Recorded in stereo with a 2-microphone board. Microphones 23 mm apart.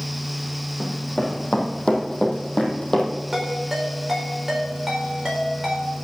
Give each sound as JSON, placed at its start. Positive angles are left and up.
{"t": 0.8, "sound": "running footsteps", "side_deg": 60, "distance_m": 3.0}
{"t": 3.3, "sound": "a ringtone", "side_deg": -15, "distance_m": 4.5}